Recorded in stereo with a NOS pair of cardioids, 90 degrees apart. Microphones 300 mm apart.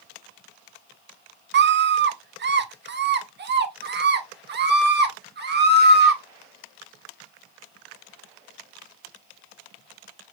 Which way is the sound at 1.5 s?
40° right.